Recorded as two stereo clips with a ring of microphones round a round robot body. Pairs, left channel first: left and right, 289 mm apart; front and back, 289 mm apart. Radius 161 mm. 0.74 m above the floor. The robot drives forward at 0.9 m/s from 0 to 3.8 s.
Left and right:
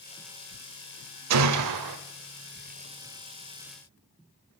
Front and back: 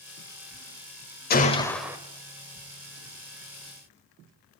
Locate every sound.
1.3 s a gunshot: 60° right, 0.9 m; by 2.0 s 100° right, 0.8 m